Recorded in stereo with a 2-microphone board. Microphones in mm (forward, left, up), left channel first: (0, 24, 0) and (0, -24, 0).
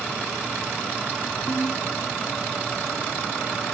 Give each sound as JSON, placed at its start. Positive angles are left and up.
{"t": 1.5, "sound": "a ringtone", "side_deg": 55}